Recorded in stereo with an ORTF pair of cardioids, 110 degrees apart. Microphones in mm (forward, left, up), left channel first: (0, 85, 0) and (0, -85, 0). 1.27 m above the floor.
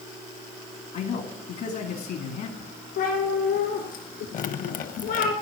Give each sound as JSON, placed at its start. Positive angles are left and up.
{"t": 0.9, "sound": "a man speaking", "azimuth_deg": 65, "distance_m": 2.5}
{"t": 3.0, "sound": "a cat meowing", "azimuth_deg": 70, "distance_m": 4.5}
{"t": 4.3, "sound": "dripping", "azimuth_deg": 50, "distance_m": 1.0}